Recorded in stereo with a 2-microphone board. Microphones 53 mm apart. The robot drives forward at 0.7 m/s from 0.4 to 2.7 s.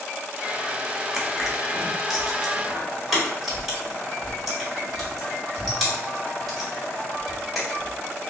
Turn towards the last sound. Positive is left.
turn(degrees=-5)  # may be behind; listen again after turning